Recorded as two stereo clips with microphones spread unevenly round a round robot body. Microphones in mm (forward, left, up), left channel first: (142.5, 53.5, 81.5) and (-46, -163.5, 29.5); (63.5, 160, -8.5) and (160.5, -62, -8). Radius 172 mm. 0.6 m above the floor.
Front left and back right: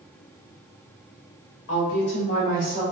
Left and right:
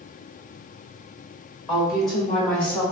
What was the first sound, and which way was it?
A woman speaking, 35° left.